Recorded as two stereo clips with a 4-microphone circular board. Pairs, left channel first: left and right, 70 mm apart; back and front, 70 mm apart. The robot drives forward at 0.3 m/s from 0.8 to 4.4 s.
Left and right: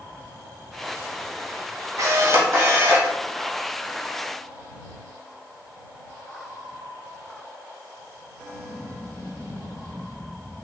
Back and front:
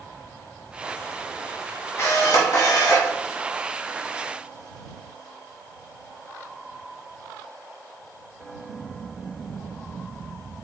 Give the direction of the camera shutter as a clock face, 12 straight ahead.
4 o'clock.